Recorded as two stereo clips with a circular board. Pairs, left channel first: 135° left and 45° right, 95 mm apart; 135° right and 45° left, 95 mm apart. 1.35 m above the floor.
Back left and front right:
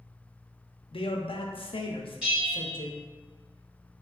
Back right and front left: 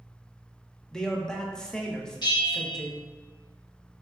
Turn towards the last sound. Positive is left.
turn(degrees=-120)